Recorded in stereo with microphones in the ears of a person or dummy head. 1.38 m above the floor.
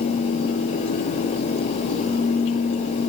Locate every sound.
Only background noise.